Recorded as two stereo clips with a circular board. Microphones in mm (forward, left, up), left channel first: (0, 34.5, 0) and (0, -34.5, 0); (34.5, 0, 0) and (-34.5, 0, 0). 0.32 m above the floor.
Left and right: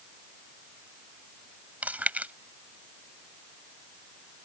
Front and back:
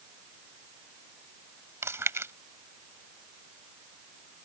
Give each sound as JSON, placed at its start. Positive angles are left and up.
{"t": 1.8, "sound": "chewing", "azimuth_deg": -150}